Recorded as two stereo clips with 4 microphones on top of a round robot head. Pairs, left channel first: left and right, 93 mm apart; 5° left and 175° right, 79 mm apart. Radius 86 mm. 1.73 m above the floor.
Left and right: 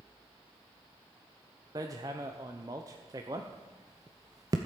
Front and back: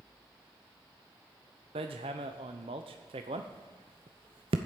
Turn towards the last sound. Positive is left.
turn(degrees=-150)